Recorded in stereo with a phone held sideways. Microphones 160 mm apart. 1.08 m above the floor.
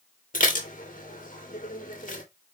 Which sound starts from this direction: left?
Dishes clattering, at 0.3 s.